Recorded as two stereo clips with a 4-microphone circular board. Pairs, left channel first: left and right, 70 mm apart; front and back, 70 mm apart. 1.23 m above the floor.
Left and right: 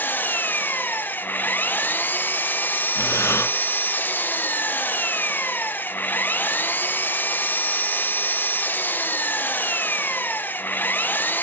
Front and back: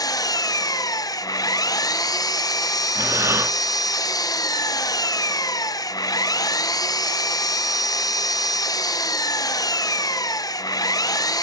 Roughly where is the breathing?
Behind left.